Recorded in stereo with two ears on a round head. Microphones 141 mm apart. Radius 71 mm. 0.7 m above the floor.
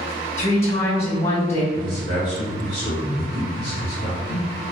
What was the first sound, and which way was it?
A woman speaking, 40° left (ahead or behind).